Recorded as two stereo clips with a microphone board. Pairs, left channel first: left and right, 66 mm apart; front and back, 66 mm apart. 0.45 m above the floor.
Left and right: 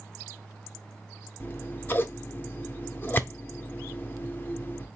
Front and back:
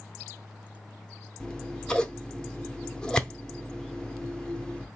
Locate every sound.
1.4 s scissors: 65° left, 0.6 m